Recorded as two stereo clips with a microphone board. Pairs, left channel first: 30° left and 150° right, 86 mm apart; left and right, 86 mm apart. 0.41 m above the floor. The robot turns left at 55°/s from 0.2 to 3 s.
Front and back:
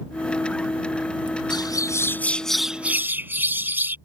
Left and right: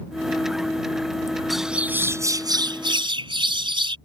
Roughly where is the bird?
Ahead.